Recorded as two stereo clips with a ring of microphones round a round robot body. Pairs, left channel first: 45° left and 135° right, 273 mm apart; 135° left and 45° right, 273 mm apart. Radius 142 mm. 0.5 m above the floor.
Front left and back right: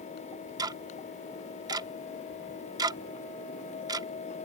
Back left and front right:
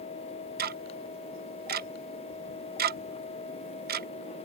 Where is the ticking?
70° right.